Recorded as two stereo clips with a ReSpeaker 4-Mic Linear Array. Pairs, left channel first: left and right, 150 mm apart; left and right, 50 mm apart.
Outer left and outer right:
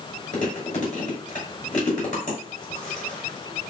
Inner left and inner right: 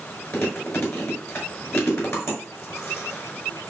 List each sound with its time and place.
0.3 s chewing: 55° left (ahead or behind), 6 m